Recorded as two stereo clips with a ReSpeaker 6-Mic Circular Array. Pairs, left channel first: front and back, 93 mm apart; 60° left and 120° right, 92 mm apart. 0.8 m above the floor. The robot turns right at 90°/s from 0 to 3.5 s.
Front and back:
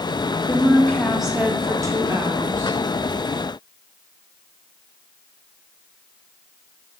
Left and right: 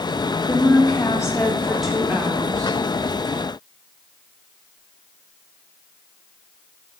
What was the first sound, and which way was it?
A woman speaking, 30° left.